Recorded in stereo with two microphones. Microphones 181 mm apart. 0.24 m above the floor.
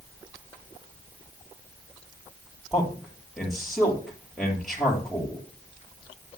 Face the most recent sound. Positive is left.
turn(degrees=0)  # may be behind; listen again after turning